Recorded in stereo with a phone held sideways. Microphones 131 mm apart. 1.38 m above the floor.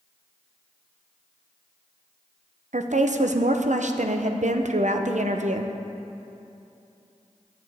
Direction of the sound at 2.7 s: 70° right (ahead or behind).